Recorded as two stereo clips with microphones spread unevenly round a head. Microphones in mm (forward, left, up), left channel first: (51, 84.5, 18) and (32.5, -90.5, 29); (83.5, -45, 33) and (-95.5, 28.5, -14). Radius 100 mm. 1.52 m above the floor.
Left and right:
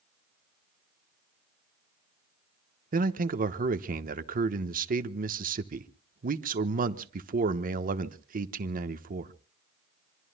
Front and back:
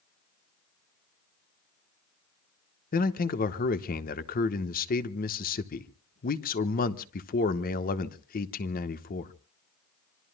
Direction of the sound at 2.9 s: 60° right.